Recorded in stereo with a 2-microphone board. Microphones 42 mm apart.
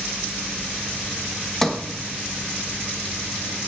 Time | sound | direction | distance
1.6 | a sliding door | 5° left (ahead or behind) | 1.2 m